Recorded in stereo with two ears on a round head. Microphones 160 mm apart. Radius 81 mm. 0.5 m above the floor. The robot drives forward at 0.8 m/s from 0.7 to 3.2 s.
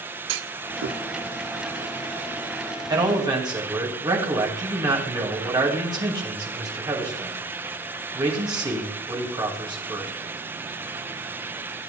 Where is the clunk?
80° right, 0.6 m; by 1.0 s 60° right (ahead or behind), 0.7 m.